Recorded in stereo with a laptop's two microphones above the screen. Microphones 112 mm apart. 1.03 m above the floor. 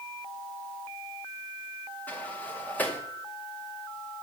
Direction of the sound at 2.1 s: 15° left (ahead or behind).